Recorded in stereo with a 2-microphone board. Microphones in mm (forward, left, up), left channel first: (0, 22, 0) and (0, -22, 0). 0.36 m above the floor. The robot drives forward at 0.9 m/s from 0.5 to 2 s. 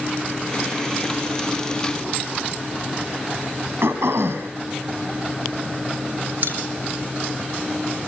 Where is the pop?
45° right (ahead or behind), 5 m.